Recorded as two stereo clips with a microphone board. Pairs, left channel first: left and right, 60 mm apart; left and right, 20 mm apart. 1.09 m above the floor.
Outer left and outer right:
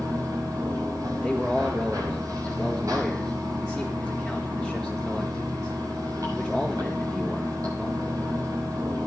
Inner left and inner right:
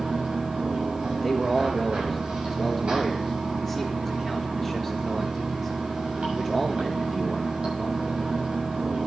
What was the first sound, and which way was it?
Running water, 65° right (ahead or behind).